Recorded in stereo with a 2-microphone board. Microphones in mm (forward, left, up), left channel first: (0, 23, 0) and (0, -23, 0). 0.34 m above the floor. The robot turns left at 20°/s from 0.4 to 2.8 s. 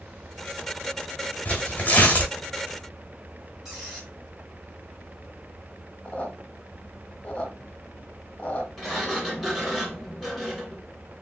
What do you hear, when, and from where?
1.4 s tearing paper: 30° left (ahead or behind), 1.3 m; by 2.3 s 35° left (ahead or behind), 1.3 m
3.6 s a squeak: 10° right (ahead or behind), 2.0 m
6.0 s a squeak: 25° left (ahead or behind), 1.0 m
8.8 s a sliding door: 5° right (ahead or behind), 1.3 m